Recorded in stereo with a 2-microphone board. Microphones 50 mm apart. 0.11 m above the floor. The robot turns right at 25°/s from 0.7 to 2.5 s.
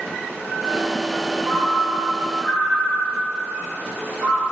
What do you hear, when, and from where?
1.4 s a ringtone: 10° left (ahead or behind), 1.2 m; by 4.4 s 30° left (ahead or behind), 1.2 m